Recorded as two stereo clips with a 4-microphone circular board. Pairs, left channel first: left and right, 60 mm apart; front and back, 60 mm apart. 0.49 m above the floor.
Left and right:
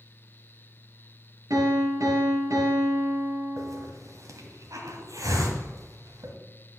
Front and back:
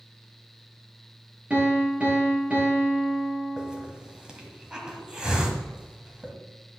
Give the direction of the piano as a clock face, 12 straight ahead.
4 o'clock.